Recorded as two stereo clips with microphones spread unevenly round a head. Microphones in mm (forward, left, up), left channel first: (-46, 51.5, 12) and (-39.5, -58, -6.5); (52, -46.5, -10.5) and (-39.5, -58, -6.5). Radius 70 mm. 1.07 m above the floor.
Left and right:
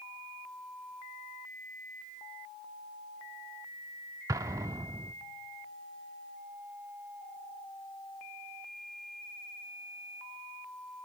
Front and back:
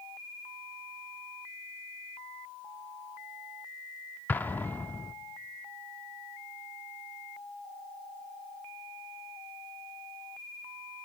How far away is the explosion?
About 0.6 m.